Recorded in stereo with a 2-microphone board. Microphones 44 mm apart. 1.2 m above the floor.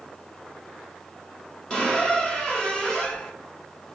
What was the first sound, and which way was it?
A squeak, 15° left (ahead or behind).